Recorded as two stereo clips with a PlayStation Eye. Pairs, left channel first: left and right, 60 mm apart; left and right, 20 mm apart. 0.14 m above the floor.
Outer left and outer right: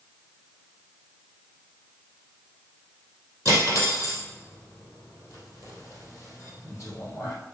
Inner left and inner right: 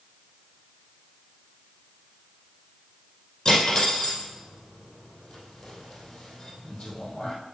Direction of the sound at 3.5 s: 45° left (ahead or behind).